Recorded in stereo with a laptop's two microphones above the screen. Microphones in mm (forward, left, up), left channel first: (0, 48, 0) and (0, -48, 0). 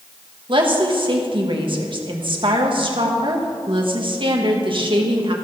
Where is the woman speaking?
55° right (ahead or behind), 1.3 m.